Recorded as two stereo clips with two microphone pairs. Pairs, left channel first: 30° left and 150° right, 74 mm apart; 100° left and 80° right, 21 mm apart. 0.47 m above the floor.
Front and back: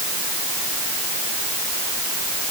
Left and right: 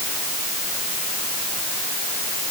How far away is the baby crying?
I don't hear a baby crying.